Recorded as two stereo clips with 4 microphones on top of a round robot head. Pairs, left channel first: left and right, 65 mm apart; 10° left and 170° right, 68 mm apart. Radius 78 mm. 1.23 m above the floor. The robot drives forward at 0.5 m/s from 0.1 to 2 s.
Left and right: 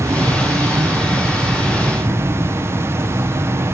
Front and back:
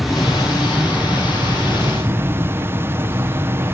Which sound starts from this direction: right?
An insect, at 0.0 s.